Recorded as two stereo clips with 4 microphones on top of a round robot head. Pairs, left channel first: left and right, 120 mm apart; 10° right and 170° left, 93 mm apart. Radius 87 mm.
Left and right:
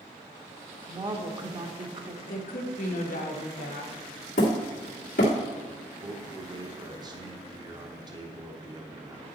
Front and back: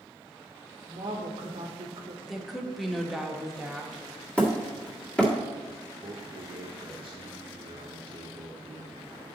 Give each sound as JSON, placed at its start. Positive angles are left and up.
{"t": 0.9, "sound": "a woman speaking", "azimuth_deg": -140, "distance_m": 1.1}
{"t": 2.2, "sound": "a woman speaking", "azimuth_deg": 85, "distance_m": 1.3}
{"t": 4.4, "sound": "hammering", "azimuth_deg": 70, "distance_m": 1.7}
{"t": 6.0, "sound": "a man speaking", "azimuth_deg": -145, "distance_m": 0.9}